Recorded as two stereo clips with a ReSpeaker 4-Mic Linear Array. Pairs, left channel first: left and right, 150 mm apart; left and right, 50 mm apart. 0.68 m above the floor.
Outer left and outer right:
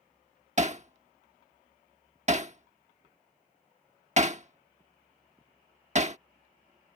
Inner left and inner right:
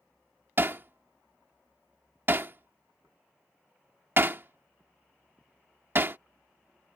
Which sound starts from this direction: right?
Hammering, at 0.6 s.